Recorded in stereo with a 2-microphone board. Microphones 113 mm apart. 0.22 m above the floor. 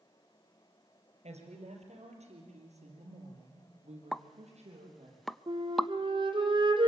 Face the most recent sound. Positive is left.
turn(degrees=-45)  # may be behind; listen again after turning